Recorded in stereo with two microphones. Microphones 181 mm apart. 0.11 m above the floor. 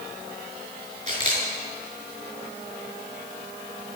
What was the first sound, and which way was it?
A camera shutter, 50° right (ahead or behind).